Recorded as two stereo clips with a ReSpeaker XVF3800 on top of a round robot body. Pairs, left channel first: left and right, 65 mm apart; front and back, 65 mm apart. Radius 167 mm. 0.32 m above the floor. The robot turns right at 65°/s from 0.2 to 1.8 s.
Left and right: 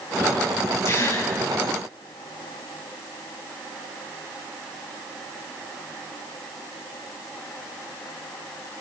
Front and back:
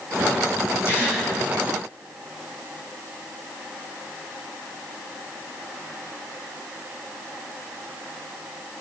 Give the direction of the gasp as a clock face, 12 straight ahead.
11 o'clock.